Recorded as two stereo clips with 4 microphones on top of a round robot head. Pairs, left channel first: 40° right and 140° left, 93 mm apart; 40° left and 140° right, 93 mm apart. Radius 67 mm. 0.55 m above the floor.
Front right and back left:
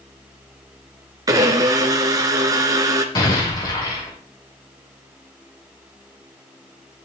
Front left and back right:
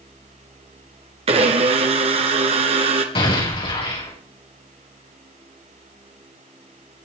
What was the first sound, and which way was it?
A blender, 165° right.